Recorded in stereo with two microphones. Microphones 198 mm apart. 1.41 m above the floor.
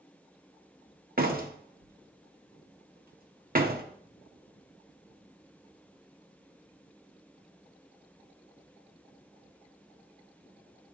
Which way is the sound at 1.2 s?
50° right (ahead or behind).